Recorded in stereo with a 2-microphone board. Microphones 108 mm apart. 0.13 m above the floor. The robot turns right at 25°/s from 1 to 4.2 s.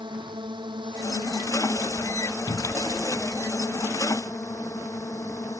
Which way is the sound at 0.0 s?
50° right.